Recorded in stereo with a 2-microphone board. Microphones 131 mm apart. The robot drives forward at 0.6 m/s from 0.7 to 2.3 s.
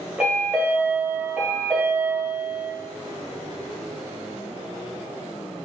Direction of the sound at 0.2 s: 10° right (ahead or behind).